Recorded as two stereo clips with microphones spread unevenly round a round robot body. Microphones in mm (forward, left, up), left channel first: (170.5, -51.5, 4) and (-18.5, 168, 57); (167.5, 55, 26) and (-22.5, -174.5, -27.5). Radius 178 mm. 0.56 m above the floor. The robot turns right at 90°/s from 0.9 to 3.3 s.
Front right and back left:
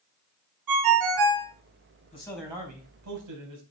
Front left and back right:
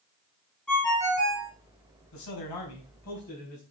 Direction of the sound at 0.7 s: 135° left.